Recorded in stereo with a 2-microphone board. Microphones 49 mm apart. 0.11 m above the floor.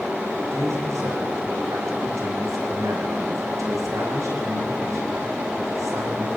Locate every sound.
0.5 s a man speaking: 75° right (ahead or behind), 7 m